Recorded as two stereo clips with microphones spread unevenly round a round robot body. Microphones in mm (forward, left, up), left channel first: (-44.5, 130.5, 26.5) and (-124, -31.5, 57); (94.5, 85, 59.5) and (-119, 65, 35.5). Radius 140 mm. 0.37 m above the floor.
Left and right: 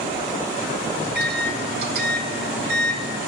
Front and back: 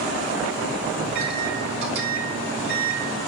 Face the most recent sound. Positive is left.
turn(degrees=-145)